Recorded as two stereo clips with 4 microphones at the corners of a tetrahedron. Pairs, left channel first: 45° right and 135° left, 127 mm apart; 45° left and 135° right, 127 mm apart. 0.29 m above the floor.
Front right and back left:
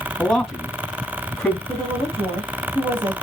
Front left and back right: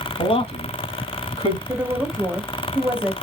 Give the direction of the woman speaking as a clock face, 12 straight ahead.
7 o'clock.